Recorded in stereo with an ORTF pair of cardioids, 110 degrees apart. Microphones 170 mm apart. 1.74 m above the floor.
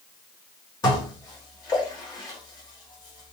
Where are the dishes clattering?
25° left, 2.5 m.